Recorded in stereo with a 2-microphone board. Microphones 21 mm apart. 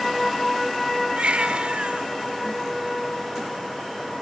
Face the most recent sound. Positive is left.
turn(degrees=-65)  # may be behind; listen again after turning